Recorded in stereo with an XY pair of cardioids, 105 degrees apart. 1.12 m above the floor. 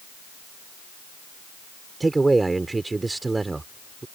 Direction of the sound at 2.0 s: 20° right.